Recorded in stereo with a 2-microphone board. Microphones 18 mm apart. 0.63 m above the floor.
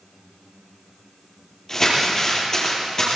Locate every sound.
1.7 s crumpling: 30° left (ahead or behind), 8 m